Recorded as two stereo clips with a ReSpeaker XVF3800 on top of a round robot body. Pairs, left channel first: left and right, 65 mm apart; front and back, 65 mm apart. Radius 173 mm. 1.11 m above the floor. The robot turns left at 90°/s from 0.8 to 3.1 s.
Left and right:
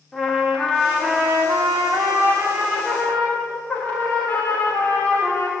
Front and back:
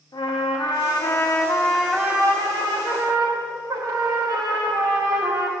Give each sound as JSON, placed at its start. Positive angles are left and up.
{"t": 0.1, "sound": "a trumpet", "azimuth_deg": 0, "distance_m": 2.5}